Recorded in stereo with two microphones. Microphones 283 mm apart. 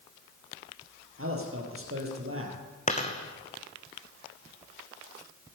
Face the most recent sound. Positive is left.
turn(degrees=25)  # may be behind; listen again after turning